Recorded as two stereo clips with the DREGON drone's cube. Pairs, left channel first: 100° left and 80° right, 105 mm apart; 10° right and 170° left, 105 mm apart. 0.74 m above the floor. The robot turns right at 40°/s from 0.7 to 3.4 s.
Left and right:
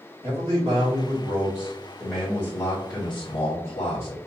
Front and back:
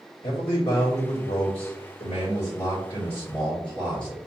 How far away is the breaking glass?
No breaking glass in this recording.